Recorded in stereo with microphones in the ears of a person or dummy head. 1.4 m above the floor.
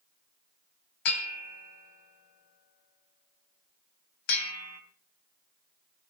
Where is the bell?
60° left (ahead or behind), 2.5 m.